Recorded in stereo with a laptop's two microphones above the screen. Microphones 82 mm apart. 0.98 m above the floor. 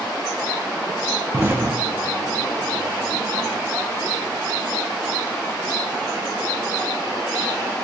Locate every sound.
1.3 s an explosion: 25° right (ahead or behind), 0.7 m